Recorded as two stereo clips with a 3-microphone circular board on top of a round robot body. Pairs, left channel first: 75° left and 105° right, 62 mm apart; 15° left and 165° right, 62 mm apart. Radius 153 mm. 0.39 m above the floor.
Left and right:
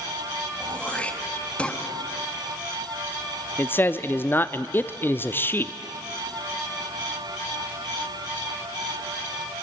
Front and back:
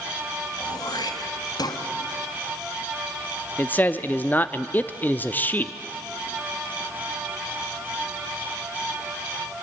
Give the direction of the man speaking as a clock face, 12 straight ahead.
10 o'clock.